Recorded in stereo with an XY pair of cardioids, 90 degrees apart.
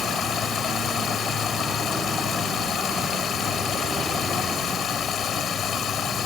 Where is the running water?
65° left.